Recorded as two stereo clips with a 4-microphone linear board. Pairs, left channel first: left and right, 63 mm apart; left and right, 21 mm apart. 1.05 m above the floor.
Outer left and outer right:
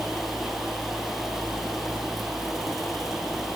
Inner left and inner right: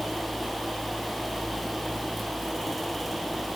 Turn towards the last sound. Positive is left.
No sound to turn to.